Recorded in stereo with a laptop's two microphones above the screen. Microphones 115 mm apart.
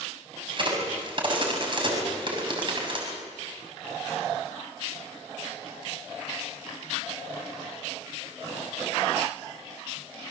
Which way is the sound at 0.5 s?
45° right (ahead or behind).